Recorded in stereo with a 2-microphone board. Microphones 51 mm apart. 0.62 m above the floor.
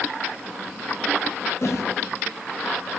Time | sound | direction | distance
1.6 | a whoosh | 65° left (ahead or behind) | 2.5 m